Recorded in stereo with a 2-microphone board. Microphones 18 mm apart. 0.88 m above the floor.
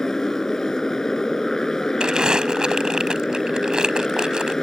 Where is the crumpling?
50° right (ahead or behind).